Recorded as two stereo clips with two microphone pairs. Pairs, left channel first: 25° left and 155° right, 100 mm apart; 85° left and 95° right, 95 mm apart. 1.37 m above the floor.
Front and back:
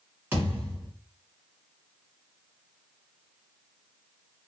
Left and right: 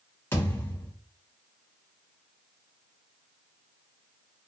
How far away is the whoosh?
No whoosh in this recording.